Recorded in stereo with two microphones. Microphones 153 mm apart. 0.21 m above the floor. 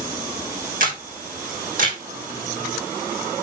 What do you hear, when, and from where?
0.8 s a camera shutter: 65° right (ahead or behind), 2.5 m